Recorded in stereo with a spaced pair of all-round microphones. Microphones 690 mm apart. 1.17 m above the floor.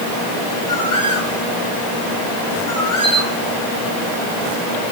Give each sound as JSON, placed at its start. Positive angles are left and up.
{"t": 0.7, "sound": "a bird", "side_deg": 55, "distance_m": 3.5}
{"t": 3.0, "sound": "a camera shutter", "side_deg": 75, "distance_m": 5.5}